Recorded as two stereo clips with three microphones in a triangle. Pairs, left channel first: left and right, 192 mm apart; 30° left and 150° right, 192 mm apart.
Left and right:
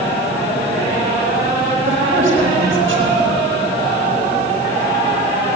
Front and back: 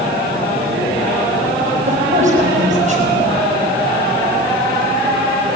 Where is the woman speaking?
100° right, 5.5 m.